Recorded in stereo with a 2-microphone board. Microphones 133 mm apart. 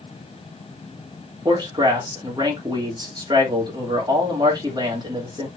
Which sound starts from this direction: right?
A man speaking, at 1.4 s.